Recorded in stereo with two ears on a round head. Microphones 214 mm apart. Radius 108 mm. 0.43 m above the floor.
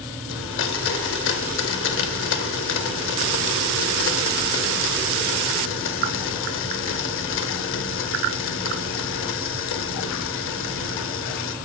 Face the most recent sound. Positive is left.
turn(degrees=55)  # may be behind; listen again after turning